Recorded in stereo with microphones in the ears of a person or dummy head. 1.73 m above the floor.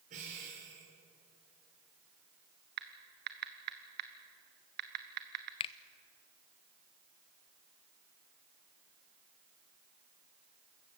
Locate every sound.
0.1 s breathing: 45° right (ahead or behind), 5 m
2.8 s typing on a keyboard: 50° right (ahead or behind), 1.1 m
5.6 s a finger snap: 30° left (ahead or behind), 0.5 m